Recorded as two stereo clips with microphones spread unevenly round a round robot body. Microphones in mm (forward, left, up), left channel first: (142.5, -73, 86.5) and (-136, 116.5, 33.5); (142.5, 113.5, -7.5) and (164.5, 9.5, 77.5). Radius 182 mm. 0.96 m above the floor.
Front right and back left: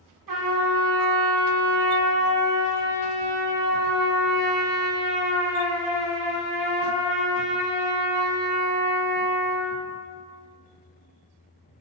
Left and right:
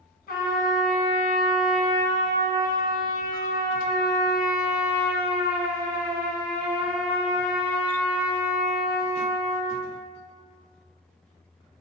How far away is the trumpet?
About 1.5 m.